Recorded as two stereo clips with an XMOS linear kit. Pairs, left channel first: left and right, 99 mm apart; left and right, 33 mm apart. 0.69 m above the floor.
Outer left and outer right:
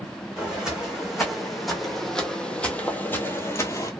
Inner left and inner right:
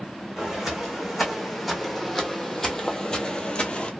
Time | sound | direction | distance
0.4 | footsteps | 10° right (ahead or behind) | 1.9 m